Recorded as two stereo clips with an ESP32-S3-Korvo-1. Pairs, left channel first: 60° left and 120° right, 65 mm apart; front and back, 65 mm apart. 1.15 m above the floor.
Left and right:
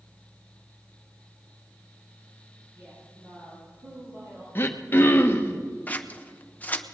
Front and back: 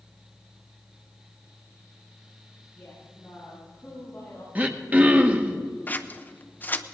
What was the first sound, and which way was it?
A woman speaking, 75° right.